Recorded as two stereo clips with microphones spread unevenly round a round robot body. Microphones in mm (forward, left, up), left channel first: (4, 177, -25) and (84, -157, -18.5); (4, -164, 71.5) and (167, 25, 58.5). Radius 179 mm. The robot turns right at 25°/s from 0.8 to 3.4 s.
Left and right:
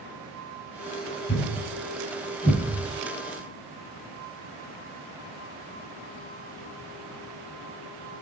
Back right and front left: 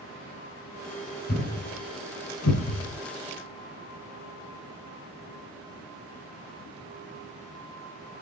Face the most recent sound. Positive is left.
turn(degrees=-145)